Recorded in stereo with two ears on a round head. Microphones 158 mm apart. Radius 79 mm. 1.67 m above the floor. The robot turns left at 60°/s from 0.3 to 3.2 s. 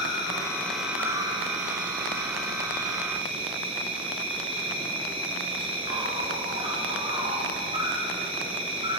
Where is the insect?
30° left, 3 m; by 9.0 s 145° right, 3 m.